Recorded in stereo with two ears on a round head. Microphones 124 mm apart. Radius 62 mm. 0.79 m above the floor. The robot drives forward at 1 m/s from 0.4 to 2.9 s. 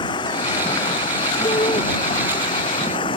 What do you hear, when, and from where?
0.0 s running water: 35° left (ahead or behind)
1.4 s a shout: 30° left (ahead or behind)